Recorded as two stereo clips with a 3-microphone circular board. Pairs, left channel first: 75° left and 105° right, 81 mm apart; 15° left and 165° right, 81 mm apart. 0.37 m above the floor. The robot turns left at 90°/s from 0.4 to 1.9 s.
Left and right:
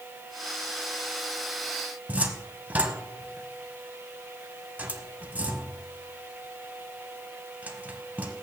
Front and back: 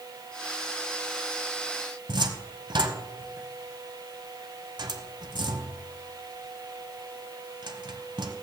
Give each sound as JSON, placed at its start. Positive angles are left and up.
{"t": 2.1, "sound": "a cupboard door", "azimuth_deg": -175, "distance_m": 1.0}